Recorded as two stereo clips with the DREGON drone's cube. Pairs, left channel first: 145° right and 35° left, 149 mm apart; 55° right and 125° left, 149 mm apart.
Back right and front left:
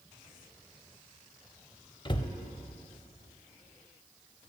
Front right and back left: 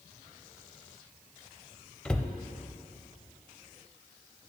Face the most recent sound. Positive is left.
turn(degrees=-135)